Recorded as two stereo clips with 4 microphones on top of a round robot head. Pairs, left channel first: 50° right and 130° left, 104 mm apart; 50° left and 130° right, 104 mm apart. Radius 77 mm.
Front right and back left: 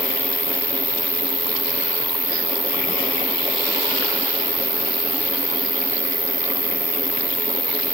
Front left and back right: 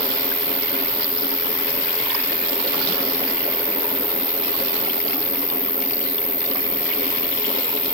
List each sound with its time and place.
0.0 s an insect: 175° right, 2.0 m